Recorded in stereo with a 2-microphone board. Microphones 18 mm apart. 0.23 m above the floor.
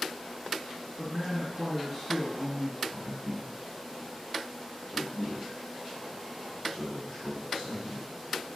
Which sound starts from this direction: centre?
A man speaking, at 1.0 s.